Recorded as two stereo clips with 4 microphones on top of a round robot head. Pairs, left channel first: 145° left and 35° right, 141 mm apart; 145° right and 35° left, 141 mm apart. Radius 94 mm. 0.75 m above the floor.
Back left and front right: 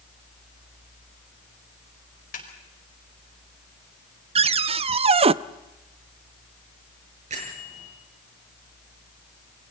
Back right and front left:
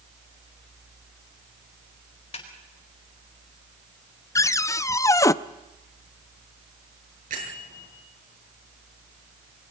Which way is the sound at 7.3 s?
5° left.